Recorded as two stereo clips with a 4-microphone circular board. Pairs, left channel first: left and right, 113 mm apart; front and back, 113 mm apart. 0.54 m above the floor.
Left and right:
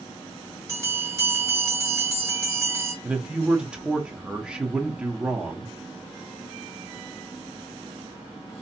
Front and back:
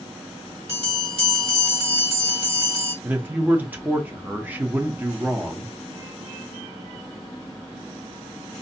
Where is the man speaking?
150° right, 0.6 m.